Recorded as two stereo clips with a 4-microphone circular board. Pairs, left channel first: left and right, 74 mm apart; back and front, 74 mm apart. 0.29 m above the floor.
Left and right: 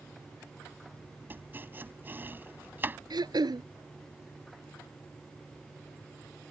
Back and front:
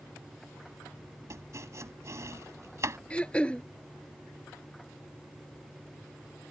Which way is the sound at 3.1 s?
105° right.